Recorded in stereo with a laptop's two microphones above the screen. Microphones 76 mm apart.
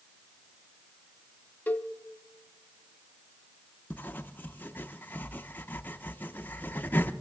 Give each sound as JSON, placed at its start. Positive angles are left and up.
{"t": 1.7, "sound": "a cowbell", "side_deg": 20, "distance_m": 0.6}
{"t": 3.9, "sound": "writing", "side_deg": 25, "distance_m": 0.5}